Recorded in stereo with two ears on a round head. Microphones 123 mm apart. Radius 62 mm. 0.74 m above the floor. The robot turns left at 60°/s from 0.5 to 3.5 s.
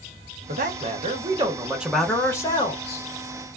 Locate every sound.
0.5 s a man speaking: 90° right, 0.8 m; by 3.0 s 115° left, 0.8 m